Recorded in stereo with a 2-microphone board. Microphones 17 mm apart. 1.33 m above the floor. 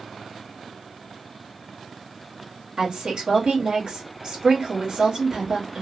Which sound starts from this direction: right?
A woman speaking, at 2.8 s.